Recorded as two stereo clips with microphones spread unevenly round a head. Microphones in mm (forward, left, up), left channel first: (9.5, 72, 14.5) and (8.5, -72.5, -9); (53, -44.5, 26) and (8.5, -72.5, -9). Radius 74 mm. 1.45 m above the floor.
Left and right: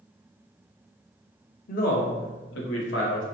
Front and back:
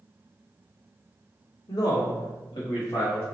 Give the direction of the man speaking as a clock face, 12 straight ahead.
10 o'clock.